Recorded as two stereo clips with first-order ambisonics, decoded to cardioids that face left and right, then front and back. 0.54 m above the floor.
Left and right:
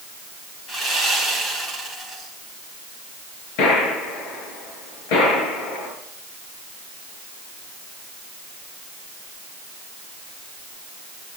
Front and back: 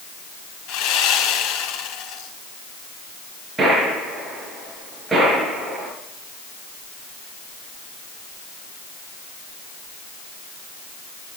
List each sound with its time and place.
0.7 s sawing: 15° left, 4 m
3.6 s a gunshot: 100° left, 6 m